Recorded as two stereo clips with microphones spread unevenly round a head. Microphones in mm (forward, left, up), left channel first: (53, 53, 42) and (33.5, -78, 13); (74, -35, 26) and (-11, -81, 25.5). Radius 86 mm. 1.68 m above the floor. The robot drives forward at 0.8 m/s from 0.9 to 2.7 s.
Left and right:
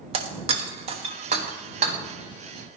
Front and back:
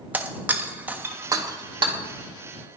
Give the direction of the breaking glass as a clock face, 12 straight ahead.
3 o'clock.